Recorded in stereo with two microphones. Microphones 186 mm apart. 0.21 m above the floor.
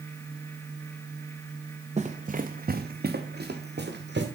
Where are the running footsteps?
35° right (ahead or behind), 1.1 m; by 4.2 s 70° right (ahead or behind), 2 m.